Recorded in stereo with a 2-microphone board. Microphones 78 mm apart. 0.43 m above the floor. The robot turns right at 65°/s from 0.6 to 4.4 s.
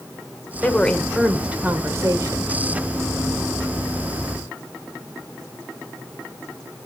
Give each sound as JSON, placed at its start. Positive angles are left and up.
{"t": 0.6, "sound": "a woman speaking", "azimuth_deg": 150, "distance_m": 1.8}